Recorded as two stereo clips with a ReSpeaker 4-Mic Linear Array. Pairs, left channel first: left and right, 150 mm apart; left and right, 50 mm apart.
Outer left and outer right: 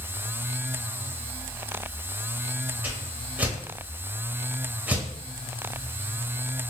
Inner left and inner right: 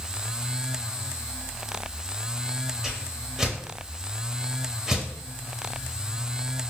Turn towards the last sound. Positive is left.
turn(degrees=-10)  # may be behind; listen again after turning